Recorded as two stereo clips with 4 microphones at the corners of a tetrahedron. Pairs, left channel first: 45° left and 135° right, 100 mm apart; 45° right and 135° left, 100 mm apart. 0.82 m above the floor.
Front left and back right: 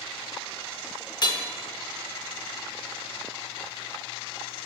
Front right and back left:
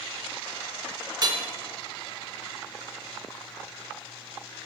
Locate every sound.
1.2 s hammering: 90° left, 0.9 m